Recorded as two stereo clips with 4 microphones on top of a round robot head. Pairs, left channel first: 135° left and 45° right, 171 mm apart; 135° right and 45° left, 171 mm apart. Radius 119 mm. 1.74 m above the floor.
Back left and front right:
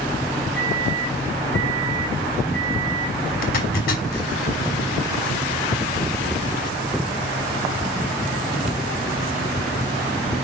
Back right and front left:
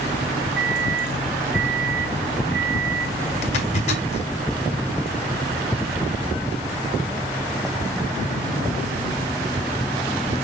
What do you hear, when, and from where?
0.6 s a microwave: 55° left, 2.5 m
3.4 s a zipper: 175° left, 2 m